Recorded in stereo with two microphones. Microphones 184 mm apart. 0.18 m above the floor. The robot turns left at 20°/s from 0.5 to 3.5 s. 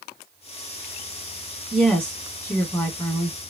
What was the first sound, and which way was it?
A woman speaking, straight behind.